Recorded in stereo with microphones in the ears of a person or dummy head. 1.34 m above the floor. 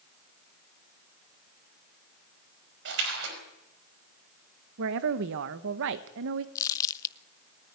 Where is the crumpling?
15° left (ahead or behind), 0.5 m.